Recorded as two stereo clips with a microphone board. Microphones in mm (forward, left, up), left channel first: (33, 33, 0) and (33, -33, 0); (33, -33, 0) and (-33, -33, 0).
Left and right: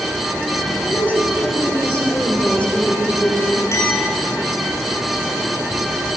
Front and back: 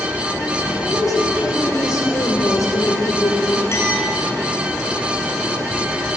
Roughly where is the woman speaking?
Ahead left.